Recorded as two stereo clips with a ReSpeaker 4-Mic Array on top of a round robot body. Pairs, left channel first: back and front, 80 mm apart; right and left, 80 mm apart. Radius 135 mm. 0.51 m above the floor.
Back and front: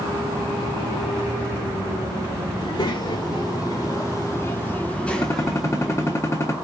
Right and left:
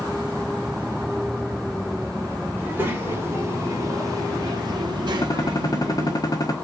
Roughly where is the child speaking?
Behind left.